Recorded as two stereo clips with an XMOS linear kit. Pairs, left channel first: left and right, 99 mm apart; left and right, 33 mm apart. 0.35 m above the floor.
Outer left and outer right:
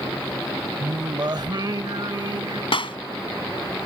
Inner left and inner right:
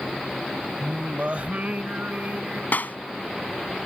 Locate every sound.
0.8 s singing: 50° right (ahead or behind)
2.7 s a clap: 70° left (ahead or behind)